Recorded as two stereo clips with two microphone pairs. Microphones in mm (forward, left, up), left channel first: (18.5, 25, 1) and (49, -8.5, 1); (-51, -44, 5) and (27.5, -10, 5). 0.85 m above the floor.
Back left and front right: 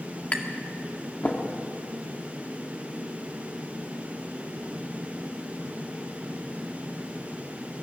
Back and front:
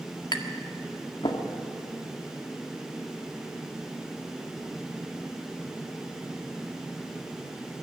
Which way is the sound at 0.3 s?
175° right.